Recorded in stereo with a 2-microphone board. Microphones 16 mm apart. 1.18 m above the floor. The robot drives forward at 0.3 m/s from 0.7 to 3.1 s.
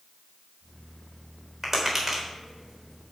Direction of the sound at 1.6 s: 10° right (ahead or behind).